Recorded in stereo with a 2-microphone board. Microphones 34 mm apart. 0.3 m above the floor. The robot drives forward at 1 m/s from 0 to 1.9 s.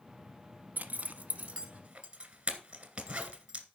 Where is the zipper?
60° right (ahead or behind), 1.0 m; by 3.6 s 30° right (ahead or behind), 1.8 m.